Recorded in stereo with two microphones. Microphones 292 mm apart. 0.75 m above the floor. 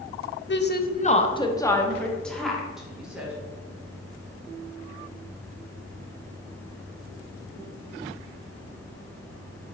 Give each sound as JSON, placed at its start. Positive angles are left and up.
{"t": 0.5, "sound": "a woman speaking", "side_deg": 45, "distance_m": 0.6}